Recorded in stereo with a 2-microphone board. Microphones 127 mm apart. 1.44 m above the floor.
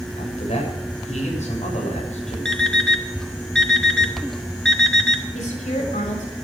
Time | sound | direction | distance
0.2 | a man speaking | 75° left (ahead or behind) | 7.5 m
2.5 | an alarm clock | 5° left (ahead or behind) | 1.8 m
5.3 | a woman speaking | 85° left | 7 m